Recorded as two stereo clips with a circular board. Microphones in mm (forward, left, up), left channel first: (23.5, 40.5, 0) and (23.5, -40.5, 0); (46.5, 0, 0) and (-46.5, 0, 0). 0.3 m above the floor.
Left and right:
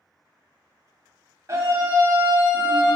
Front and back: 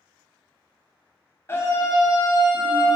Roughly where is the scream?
Ahead right.